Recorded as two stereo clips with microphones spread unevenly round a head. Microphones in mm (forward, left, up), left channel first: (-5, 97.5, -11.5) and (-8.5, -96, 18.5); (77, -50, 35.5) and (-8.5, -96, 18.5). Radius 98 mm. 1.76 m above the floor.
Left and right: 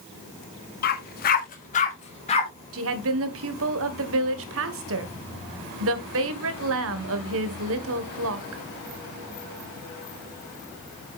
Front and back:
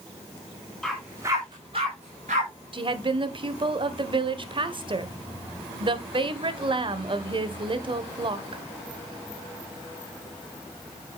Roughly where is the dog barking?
Left.